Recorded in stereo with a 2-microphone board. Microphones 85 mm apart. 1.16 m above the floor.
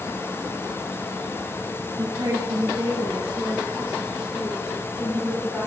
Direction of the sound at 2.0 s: 60° right (ahead or behind).